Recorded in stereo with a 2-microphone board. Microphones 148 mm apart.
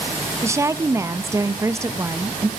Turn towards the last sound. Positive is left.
turn(degrees=-20)  # may be behind; listen again after turning